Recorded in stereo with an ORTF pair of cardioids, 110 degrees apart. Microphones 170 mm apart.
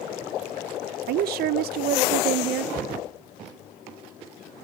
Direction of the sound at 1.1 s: 65° right.